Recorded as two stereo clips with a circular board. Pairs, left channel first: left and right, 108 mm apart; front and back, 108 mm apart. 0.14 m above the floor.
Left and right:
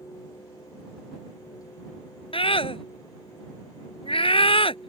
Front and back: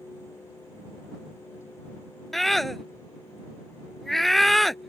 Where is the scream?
90° left.